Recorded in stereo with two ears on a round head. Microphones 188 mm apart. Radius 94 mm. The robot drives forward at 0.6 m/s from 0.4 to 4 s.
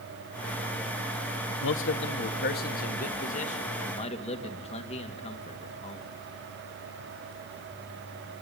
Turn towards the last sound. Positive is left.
turn(degrees=30)  # may be behind; listen again after turning